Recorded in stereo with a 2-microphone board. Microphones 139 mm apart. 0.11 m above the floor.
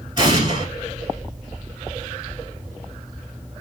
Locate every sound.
0.2 s an explosion: 30° right (ahead or behind), 1.1 m